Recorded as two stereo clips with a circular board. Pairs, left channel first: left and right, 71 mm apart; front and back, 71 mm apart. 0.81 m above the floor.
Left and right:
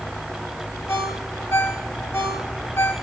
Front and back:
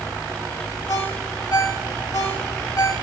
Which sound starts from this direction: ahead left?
A ringtone, at 0.9 s.